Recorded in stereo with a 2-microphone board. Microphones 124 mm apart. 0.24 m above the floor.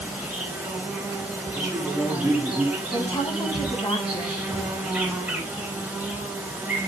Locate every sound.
0.0 s an insect: 10° right (ahead or behind), 3 m
1.6 s a man speaking: 5° right (ahead or behind), 2.5 m
2.9 s a woman speaking: 40° left (ahead or behind), 1.7 m